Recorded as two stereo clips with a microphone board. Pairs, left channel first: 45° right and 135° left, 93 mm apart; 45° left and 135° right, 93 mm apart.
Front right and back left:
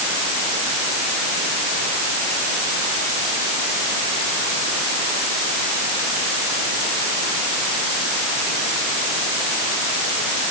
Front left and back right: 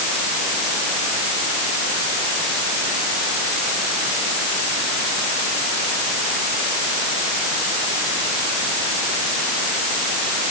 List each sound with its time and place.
Only background noise.